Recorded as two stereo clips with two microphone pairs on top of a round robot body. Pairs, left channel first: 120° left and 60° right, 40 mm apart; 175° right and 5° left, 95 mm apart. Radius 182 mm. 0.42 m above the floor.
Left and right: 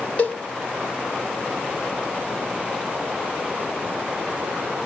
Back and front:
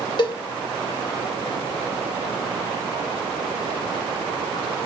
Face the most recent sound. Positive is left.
turn(degrees=170)